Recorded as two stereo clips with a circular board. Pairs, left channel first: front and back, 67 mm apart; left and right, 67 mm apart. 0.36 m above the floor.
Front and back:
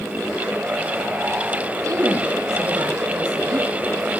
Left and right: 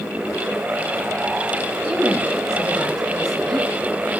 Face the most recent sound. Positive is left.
turn(degrees=175)